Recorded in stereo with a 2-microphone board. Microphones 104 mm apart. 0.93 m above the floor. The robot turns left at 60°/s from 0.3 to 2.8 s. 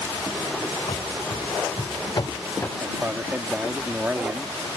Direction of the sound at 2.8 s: 15° right (ahead or behind).